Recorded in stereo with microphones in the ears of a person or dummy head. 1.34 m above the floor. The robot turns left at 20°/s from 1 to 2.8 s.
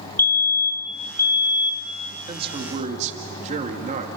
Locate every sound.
0.2 s a fire alarm: 10° left (ahead or behind), 1.4 m; by 1.9 s 20° left (ahead or behind), 1.4 m
2.3 s a man speaking: 30° right (ahead or behind), 2.5 m; by 4.1 s 40° right (ahead or behind), 2.5 m